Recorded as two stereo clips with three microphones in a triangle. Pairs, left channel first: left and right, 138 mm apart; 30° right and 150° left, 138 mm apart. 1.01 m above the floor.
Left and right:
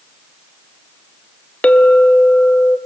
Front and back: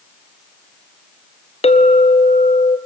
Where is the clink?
10° left, 0.7 m.